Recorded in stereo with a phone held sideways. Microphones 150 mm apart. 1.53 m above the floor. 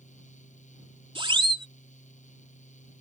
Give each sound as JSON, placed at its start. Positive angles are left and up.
{"t": 0.0, "sound": "a fan", "side_deg": 55}
{"t": 1.1, "sound": "a siren", "side_deg": -35}